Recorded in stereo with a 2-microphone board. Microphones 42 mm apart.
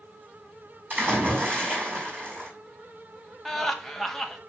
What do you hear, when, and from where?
0.9 s a splash: 50° right (ahead or behind), 5 m
3.5 s laughter: 5° left (ahead or behind), 1.1 m